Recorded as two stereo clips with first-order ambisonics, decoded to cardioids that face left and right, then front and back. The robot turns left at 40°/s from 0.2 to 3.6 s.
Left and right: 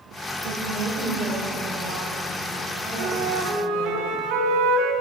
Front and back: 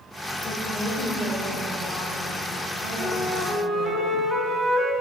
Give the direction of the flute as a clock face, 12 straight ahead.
3 o'clock.